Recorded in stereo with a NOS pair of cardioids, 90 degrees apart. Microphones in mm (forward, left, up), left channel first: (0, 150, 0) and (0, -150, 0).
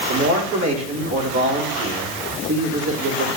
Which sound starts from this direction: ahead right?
A man speaking, at 0.1 s.